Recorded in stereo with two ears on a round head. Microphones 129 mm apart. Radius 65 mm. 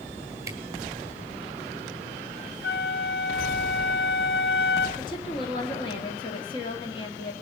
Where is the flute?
80° left, 0.9 m.